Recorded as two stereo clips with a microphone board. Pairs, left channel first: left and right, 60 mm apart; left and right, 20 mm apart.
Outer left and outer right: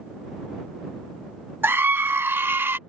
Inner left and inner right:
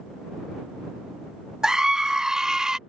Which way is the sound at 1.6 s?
40° right (ahead or behind).